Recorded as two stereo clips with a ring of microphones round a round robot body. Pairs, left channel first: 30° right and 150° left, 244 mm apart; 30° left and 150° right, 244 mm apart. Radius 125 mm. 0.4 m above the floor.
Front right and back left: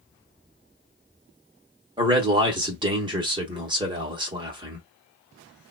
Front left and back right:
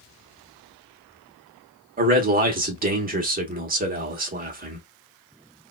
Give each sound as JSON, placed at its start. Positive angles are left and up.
{"t": 2.0, "sound": "a man speaking", "azimuth_deg": -155, "distance_m": 0.9}